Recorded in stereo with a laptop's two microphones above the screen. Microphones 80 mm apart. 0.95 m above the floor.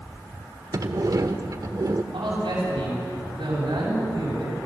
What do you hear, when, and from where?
0.7 s a sliding door: 50° right (ahead or behind), 1.1 m
2.1 s a man speaking: 80° right, 7 m